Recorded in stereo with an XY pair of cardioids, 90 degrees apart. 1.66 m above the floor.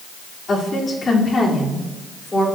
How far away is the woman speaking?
About 4 m.